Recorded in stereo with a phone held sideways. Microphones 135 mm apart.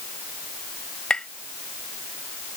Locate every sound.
1.1 s tapping: 5° left (ahead or behind)